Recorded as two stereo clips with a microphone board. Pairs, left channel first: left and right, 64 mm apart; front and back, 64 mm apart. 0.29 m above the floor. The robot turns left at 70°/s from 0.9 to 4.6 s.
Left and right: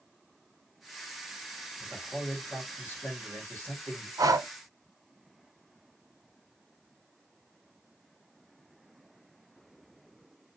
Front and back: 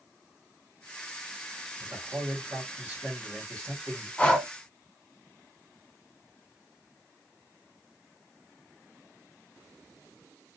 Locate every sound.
1.8 s a man speaking: 160° right, 1.8 m; by 4.1 s 40° left, 1.8 m
4.2 s breathing: 70° right, 0.7 m; by 4.5 s 90° right, 0.7 m